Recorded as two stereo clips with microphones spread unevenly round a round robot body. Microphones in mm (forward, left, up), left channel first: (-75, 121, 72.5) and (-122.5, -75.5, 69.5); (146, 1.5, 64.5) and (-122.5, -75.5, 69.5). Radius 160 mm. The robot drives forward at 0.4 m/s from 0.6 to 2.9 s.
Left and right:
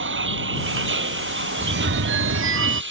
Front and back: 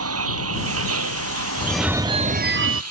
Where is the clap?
No clap in this recording.